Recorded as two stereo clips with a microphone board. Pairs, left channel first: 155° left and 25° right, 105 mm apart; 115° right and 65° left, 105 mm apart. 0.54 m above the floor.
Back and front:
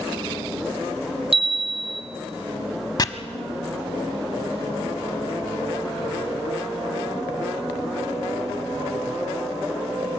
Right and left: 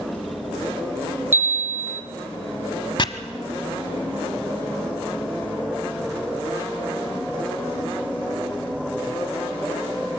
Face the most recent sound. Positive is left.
turn(degrees=-150)